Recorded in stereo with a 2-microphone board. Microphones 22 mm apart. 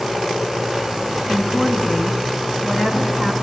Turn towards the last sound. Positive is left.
turn(degrees=-65)  # may be behind; listen again after turning